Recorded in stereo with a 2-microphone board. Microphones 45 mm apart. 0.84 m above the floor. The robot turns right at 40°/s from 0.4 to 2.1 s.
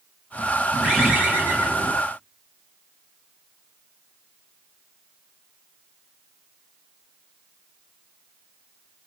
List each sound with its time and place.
0.8 s a bird: 170° right, 1.0 m; by 1.9 s 120° right, 1.0 m